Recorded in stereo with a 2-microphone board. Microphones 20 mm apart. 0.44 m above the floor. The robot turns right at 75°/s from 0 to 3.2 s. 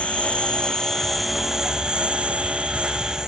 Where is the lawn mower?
85° left; by 3.3 s 35° right.